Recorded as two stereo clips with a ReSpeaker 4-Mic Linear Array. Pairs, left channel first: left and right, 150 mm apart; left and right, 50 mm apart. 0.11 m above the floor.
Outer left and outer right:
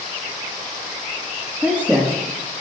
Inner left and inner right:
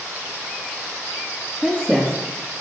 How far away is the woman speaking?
About 4.5 m.